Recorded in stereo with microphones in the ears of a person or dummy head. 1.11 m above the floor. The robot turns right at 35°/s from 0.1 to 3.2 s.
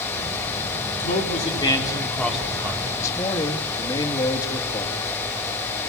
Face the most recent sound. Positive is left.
turn(degrees=20)  # may be behind; listen again after turning